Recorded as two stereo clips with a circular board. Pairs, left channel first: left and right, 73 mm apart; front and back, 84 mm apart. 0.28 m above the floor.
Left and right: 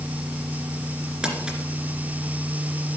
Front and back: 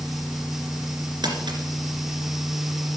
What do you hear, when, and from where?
1.2 s crumpling: 170° right, 2.5 m